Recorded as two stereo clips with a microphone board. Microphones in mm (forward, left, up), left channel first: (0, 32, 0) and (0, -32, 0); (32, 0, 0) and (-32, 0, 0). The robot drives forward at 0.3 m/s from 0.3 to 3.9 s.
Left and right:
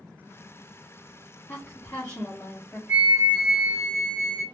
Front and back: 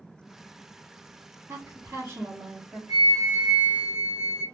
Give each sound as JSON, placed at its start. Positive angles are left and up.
{"t": 1.5, "sound": "a woman speaking", "azimuth_deg": 140, "distance_m": 1.1}
{"t": 2.9, "sound": "a flute", "azimuth_deg": -150, "distance_m": 0.9}